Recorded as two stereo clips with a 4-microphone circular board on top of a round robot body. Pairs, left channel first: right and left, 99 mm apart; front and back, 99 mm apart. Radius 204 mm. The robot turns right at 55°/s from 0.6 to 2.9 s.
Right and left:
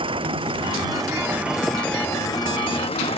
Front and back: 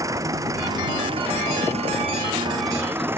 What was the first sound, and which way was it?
An engine running, 120° left.